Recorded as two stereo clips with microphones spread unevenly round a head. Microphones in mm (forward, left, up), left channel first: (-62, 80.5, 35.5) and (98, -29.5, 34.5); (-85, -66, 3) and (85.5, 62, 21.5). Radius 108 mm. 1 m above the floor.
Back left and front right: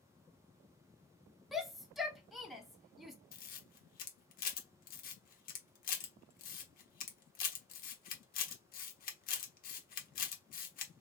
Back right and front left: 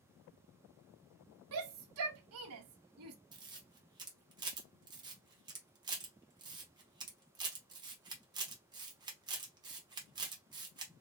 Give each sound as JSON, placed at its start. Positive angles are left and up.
{"t": 1.5, "sound": "a shout", "azimuth_deg": 55, "distance_m": 0.8}
{"t": 3.3, "sound": "a camera shutter", "azimuth_deg": 105, "distance_m": 1.0}